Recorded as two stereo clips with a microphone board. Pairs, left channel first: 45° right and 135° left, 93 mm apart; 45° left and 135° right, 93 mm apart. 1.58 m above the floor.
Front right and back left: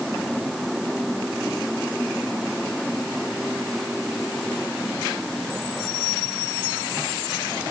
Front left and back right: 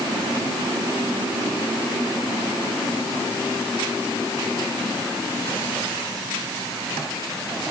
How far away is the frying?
No frying in this recording.